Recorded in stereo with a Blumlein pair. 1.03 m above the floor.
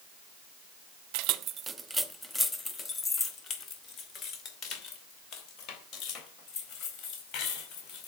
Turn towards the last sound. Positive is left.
turn(degrees=35)